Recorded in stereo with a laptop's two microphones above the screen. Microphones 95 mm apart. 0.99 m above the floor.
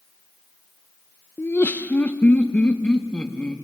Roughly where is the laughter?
Left.